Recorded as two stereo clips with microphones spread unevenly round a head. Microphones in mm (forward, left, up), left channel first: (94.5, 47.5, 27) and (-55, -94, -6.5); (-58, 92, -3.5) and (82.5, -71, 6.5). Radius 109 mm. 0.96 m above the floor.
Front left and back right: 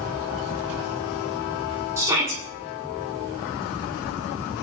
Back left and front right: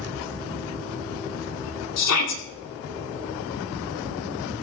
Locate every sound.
2.0 s a shout: 145° left, 8.5 m